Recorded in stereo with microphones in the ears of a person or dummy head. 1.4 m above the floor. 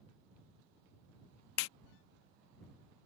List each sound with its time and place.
1.6 s a clap: 70° left (ahead or behind)